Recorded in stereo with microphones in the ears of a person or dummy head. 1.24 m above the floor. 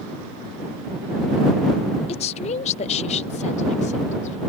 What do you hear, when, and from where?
2.1 s a woman speaking: 30° left (ahead or behind); by 4.4 s 40° left (ahead or behind)